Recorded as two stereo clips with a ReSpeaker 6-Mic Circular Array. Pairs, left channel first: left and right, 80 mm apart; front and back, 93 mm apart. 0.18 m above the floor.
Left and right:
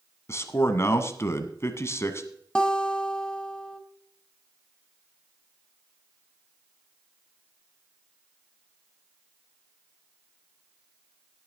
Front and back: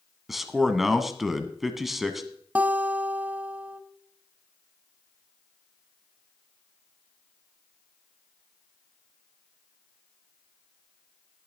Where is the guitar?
145° left, 1.0 m.